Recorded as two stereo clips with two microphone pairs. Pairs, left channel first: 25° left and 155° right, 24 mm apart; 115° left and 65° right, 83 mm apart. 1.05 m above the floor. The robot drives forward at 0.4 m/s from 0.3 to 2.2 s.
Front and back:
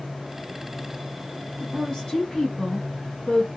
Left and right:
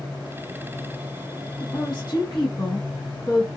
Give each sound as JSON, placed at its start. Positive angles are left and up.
{"t": 1.6, "sound": "a woman speaking", "azimuth_deg": 75, "distance_m": 1.2}